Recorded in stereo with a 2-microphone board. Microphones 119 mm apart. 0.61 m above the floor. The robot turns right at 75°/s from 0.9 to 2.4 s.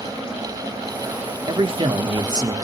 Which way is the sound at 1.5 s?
115° right.